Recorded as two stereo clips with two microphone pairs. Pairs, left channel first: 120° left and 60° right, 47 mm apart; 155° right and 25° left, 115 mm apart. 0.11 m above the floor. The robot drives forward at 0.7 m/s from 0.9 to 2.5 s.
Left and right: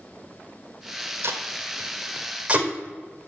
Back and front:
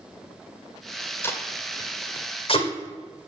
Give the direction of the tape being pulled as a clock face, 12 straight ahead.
3 o'clock.